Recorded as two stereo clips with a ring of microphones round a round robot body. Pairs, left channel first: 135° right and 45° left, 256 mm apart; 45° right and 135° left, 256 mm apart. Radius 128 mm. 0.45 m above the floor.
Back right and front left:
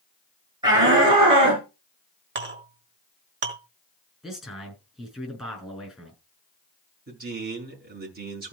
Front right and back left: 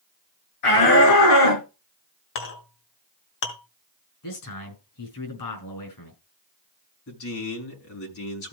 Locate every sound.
0.6 s a shout: 30° right, 7 m; by 1.6 s 25° right, 6.5 m
2.4 s a clink: 5° right, 2 m
4.2 s a man speaking: 45° right, 6 m
7.1 s a man speaking: 10° right, 5.5 m